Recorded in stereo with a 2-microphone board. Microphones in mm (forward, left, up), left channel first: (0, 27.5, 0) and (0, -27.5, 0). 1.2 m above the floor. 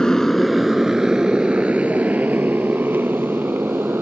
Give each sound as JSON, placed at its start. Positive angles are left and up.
{"t": 0.0, "sound": "a motorcycle", "side_deg": 10}